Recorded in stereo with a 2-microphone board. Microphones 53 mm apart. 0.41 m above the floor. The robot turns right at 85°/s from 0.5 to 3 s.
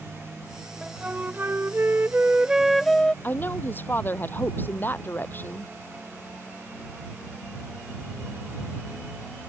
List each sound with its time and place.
0.8 s a flute: 165° right; by 3.1 s 20° left
3.2 s a woman speaking: 40° left (ahead or behind)